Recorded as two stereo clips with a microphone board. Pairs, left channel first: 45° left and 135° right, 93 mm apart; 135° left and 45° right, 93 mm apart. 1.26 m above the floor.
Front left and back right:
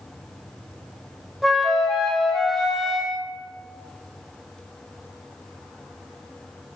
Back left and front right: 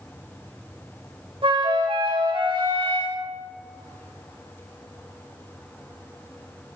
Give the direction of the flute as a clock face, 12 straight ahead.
2 o'clock.